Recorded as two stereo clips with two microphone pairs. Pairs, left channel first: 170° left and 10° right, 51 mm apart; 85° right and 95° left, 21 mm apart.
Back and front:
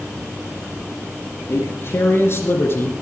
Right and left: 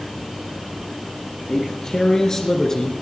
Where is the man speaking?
150° right, 3 m; by 2.9 s 155° right, 2 m.